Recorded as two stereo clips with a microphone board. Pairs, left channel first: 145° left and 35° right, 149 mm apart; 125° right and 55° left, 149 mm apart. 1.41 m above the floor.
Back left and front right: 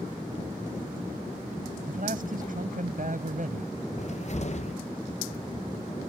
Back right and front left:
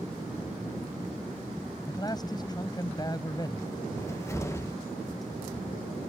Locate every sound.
1.9 s a man speaking: 60° right
4.0 s a cupboard door: 170° left